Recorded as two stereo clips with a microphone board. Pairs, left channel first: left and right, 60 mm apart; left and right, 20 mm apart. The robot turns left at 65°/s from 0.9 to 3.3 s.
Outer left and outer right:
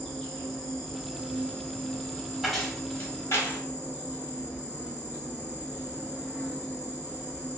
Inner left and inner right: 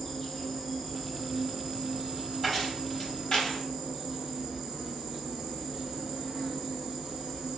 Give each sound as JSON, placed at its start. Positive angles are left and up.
{"t": 0.0, "sound": "an insect", "azimuth_deg": 5, "distance_m": 1.5}
{"t": 2.4, "sound": "keys jangling", "side_deg": -5, "distance_m": 1.1}